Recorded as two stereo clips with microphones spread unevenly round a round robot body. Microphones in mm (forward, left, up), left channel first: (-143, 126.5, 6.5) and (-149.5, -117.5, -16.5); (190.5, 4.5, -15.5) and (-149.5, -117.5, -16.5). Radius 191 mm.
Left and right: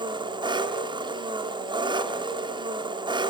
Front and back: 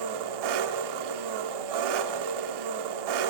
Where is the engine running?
160° right, 1.6 m.